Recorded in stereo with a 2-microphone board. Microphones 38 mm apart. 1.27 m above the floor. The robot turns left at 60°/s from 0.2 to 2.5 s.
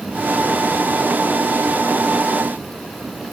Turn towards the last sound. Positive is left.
No sound to turn to.